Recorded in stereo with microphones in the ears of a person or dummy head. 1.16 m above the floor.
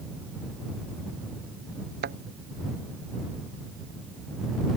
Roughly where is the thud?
Right.